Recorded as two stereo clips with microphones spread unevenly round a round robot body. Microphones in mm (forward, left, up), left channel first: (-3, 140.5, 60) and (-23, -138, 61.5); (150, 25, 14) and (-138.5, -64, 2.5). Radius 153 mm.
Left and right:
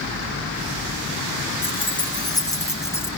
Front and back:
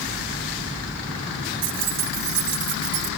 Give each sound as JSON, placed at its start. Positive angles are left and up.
{"t": 1.6, "sound": "keys jangling", "azimuth_deg": 155, "distance_m": 2.5}